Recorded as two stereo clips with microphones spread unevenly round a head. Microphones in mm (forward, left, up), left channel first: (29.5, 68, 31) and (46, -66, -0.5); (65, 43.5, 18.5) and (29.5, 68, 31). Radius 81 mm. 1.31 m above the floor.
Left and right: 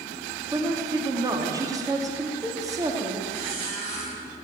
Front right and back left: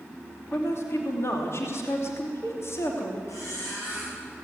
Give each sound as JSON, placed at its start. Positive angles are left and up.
{"t": 0.5, "sound": "a woman speaking", "azimuth_deg": -15, "distance_m": 2.5}
{"t": 3.3, "sound": "a squeak", "azimuth_deg": -40, "distance_m": 8.5}